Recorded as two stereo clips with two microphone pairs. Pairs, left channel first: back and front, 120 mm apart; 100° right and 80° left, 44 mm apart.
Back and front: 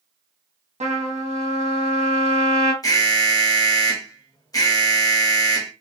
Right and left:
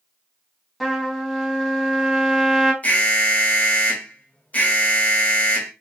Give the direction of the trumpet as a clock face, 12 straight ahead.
12 o'clock.